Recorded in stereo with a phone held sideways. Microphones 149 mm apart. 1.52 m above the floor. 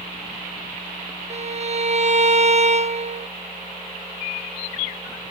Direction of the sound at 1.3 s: 45° right (ahead or behind).